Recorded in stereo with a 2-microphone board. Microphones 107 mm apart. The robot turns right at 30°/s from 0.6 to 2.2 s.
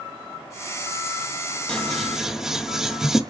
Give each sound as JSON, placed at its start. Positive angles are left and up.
{"t": 1.7, "sound": "scissors", "side_deg": 10, "distance_m": 1.2}